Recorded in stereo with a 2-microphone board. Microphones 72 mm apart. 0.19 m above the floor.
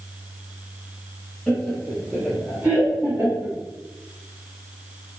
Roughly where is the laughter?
Centre.